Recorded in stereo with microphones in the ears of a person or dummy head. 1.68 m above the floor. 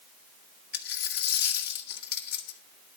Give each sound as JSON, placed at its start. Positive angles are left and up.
{"t": 0.7, "sound": "a dropped coin", "side_deg": 60, "distance_m": 2.0}